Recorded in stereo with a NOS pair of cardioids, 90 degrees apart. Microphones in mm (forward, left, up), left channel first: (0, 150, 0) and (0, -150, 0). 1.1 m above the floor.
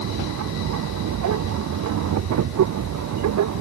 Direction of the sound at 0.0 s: 65° right.